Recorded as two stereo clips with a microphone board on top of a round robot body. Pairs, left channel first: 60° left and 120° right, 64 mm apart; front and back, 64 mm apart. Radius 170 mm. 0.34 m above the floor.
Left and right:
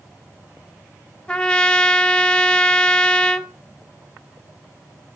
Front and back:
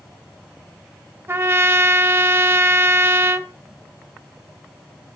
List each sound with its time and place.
1.3 s a trumpet: 135° left, 0.7 m